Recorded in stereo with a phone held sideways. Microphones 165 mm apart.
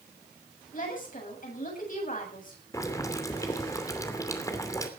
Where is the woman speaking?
60° left (ahead or behind), 8 m.